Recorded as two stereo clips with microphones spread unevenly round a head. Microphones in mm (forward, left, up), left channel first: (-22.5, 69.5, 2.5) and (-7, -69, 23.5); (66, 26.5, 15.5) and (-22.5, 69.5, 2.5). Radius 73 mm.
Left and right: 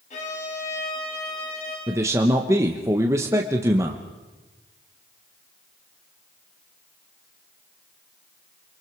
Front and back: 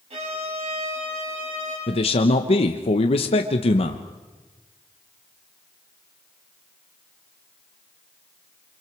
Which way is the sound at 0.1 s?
135° left.